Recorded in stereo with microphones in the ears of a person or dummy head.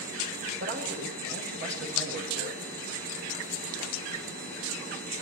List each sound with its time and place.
0.6 s a man speaking: 50° right (ahead or behind), 7 m